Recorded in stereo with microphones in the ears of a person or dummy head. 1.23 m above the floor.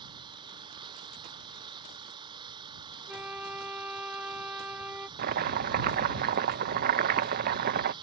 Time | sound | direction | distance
0.0 | an engine running | 25° right (ahead or behind) | ?
3.1 | a flute | 10° right (ahead or behind) | ?
5.2 | chopping | 45° right (ahead or behind) | ?